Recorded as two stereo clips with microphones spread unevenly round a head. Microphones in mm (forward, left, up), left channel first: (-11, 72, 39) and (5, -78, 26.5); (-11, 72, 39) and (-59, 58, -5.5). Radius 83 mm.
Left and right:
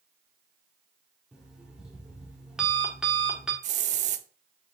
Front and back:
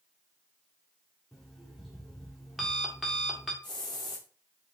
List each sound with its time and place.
1.3 s an alarm clock: 5° left, 1.4 m
3.6 s a hiss: 40° right, 0.6 m